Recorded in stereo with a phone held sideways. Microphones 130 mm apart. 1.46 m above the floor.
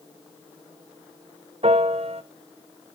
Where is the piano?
50° right (ahead or behind), 0.7 m.